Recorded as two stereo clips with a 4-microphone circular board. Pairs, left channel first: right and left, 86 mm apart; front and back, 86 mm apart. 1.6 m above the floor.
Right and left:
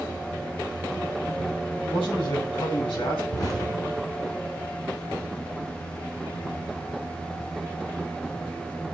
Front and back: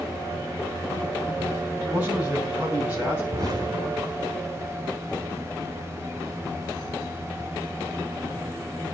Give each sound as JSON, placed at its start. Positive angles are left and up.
{"t": 1.8, "sound": "a man speaking", "azimuth_deg": -105, "distance_m": 9.0}
{"t": 3.3, "sound": "an explosion", "azimuth_deg": -135, "distance_m": 6.0}